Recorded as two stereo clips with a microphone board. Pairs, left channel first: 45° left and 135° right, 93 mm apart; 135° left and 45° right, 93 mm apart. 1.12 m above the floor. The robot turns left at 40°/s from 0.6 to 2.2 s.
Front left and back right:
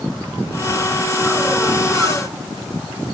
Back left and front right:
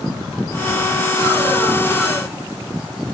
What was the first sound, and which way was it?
Only background noise.